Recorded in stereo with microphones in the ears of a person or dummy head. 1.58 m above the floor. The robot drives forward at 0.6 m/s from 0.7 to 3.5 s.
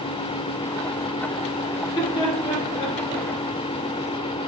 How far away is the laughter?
About 5 m.